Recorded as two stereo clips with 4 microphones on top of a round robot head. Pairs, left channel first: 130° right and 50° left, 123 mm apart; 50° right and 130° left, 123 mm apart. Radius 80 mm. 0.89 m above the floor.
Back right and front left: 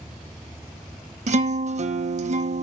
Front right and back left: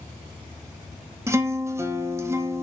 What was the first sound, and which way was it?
A guitar, 65° left.